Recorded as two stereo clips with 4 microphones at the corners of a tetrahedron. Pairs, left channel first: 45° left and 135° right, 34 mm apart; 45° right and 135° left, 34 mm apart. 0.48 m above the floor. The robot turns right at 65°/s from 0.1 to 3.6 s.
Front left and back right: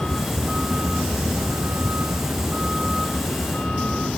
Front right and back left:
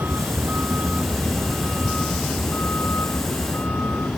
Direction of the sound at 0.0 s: 125° left.